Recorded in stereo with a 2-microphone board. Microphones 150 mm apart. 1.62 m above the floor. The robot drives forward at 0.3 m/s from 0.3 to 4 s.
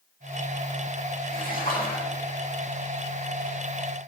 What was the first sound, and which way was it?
A splash, 70° left (ahead or behind).